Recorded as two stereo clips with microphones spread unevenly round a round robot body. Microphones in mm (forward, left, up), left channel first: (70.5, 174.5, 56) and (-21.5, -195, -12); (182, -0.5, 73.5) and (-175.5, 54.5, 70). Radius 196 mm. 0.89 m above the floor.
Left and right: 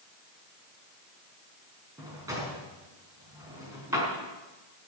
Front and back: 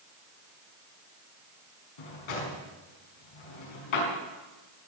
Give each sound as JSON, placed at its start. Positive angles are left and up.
{"t": 2.0, "sound": "a drawer", "azimuth_deg": -20, "distance_m": 4.5}